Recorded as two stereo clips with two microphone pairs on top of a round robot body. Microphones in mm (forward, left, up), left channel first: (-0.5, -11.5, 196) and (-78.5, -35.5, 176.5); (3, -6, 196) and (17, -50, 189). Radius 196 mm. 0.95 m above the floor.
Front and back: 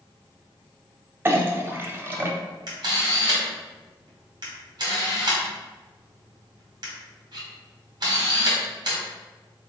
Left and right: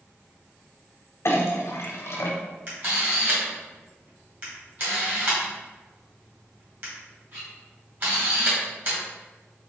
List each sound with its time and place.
1.2 s a clink: 140° left, 0.6 m
2.7 s a camera shutter: 120° right, 1.6 m